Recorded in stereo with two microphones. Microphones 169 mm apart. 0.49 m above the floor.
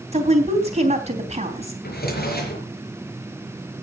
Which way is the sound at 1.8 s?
65° left (ahead or behind).